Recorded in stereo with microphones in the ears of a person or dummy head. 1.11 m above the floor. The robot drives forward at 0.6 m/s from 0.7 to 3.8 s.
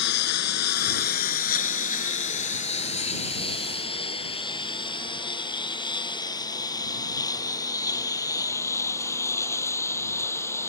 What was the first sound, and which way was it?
A lawn mower, 65° left (ahead or behind).